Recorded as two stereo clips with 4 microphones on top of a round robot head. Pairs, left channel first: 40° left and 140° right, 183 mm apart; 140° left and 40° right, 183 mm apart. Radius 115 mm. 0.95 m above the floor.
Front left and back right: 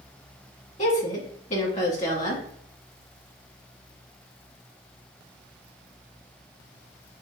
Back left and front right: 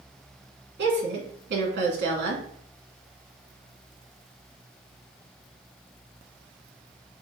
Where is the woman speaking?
10° right, 2 m.